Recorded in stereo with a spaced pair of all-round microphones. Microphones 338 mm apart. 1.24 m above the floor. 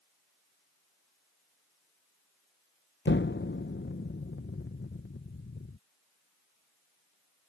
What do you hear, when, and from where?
3.0 s an explosion: 35° left (ahead or behind)